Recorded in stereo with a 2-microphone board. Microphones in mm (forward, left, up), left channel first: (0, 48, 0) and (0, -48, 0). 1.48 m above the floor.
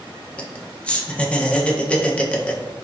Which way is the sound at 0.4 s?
15° left (ahead or behind).